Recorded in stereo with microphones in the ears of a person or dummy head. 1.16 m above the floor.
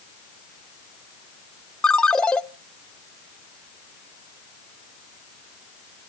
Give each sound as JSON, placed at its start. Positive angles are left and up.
{"t": 1.8, "sound": "a ringtone", "side_deg": 5, "distance_m": 0.5}